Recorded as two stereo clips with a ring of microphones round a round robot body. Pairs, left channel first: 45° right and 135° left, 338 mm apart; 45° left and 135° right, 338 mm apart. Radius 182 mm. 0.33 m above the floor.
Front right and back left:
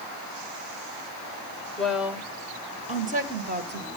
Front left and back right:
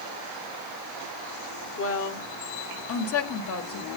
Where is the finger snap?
I don't hear a finger snap.